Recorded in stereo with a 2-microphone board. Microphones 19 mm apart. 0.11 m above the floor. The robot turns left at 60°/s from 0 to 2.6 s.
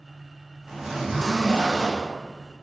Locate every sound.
0.7 s a zipper: 35° right, 1.2 m; by 2.1 s 120° right, 1.2 m